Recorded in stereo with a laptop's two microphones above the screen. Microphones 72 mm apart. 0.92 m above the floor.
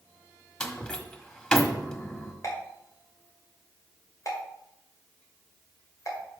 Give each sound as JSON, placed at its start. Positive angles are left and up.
{"t": 0.6, "sound": "a door slam", "side_deg": 15, "distance_m": 1.3}
{"t": 2.4, "sound": "a pop", "side_deg": 50, "distance_m": 1.9}